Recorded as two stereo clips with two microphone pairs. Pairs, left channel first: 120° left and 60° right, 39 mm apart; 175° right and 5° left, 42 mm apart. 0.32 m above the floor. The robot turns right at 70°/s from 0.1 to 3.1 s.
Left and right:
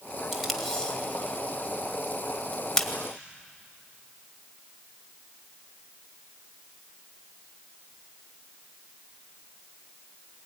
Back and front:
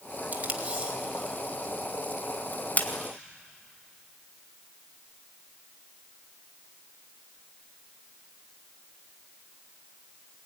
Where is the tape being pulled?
20° left, 1.8 m; by 2.9 s 160° right, 1.8 m.